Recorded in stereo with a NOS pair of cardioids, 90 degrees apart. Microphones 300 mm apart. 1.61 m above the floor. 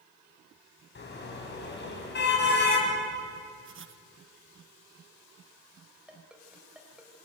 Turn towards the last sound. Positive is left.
turn(degrees=-5)